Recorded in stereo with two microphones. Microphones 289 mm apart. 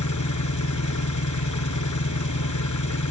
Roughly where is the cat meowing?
No cat meowing in this recording.